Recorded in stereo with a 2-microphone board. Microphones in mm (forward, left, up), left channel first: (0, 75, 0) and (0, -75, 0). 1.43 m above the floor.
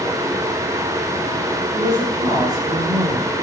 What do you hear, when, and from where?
1.7 s a woman speaking: 30° right (ahead or behind), 6 m; by 3.3 s 25° right (ahead or behind), 5 m